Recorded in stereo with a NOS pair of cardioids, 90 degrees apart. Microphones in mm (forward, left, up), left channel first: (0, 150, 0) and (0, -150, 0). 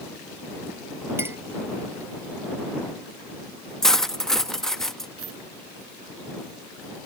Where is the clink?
10° right.